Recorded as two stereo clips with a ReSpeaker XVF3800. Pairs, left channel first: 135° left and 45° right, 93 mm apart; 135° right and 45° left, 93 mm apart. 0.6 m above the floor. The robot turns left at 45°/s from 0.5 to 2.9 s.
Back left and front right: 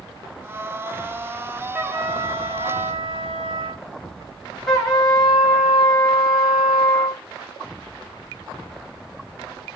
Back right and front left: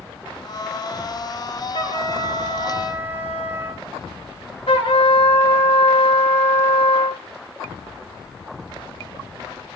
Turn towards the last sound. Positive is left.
turn(degrees=-135)